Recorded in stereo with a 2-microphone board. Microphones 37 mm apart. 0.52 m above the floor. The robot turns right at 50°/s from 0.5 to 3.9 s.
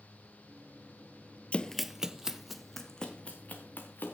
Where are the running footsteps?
30° left (ahead or behind), 0.6 m; by 4.2 s 65° left (ahead or behind), 3.5 m.